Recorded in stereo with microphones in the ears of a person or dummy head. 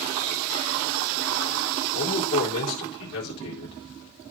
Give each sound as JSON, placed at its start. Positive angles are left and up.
{"t": 1.9, "sound": "a man speaking", "side_deg": 55, "distance_m": 3.5}